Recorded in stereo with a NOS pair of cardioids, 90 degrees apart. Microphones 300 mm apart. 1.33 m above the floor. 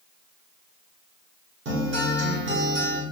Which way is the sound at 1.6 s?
45° right.